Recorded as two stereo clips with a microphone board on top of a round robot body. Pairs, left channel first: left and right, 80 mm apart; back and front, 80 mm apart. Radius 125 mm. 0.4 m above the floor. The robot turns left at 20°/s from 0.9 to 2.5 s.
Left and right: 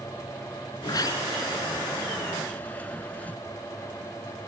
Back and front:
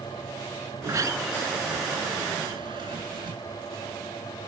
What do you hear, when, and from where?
0.8 s a sliding door: 50° left; by 3.4 s 20° left